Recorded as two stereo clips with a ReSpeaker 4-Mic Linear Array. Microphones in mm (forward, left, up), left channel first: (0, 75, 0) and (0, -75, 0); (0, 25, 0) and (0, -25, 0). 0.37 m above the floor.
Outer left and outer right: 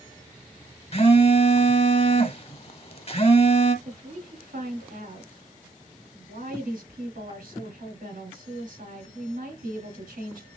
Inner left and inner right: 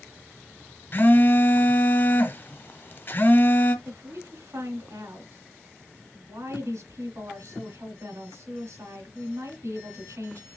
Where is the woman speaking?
75° right (ahead or behind), 4 m.